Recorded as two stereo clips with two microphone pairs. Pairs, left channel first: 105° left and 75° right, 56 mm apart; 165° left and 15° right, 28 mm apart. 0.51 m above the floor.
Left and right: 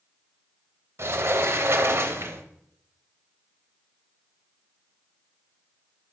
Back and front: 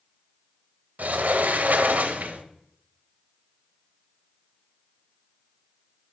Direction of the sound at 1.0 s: 35° right.